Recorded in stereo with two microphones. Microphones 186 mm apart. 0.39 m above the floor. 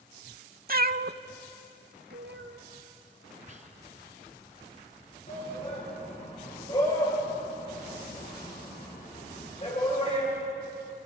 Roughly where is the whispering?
Right.